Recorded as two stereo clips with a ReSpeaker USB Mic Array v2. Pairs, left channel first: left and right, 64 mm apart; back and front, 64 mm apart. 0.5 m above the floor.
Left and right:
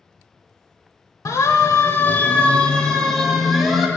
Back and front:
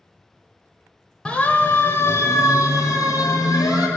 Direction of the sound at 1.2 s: 110° left.